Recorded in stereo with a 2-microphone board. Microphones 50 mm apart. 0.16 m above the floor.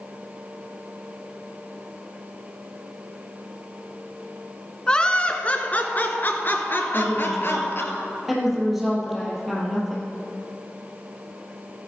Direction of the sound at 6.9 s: 5° right (ahead or behind).